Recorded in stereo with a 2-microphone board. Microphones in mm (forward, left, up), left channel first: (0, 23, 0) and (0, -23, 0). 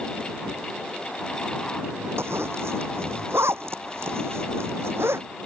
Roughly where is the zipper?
Right.